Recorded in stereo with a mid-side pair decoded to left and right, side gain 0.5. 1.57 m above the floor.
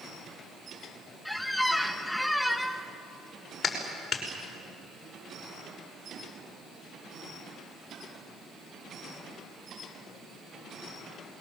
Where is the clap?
45° left, 5.5 m.